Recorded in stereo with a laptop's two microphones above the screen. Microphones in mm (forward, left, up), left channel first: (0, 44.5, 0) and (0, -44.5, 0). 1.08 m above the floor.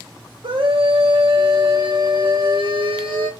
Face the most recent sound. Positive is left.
turn(degrees=-70)  # may be behind; listen again after turning